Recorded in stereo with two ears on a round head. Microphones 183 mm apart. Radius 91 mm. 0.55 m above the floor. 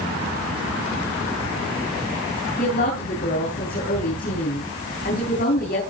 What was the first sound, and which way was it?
A woman speaking, 45° left (ahead or behind).